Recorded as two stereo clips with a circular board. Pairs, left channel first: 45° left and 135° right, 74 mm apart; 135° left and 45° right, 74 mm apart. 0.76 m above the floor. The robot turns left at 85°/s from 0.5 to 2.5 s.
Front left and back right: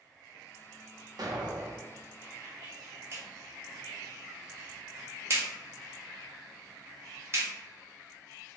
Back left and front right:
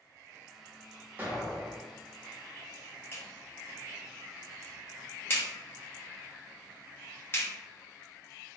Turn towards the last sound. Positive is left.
turn(degrees=-175)